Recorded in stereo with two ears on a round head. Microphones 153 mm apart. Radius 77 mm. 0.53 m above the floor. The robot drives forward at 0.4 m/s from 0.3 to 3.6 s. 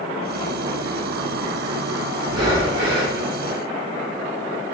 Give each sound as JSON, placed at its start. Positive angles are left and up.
{"t": 2.2, "sound": "breathing", "side_deg": -25, "distance_m": 0.9}